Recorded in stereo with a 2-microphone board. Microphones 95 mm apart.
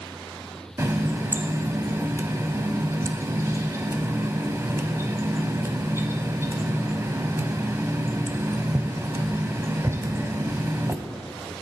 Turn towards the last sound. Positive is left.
turn(degrees=-30)  # may be behind; listen again after turning